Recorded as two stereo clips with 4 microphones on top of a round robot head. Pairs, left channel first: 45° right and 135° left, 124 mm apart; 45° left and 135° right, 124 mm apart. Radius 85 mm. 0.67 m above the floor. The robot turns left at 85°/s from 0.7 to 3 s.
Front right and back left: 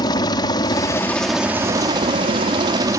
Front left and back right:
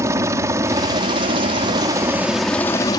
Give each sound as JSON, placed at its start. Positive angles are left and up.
{"t": 0.0, "sound": "a helicopter", "azimuth_deg": -80}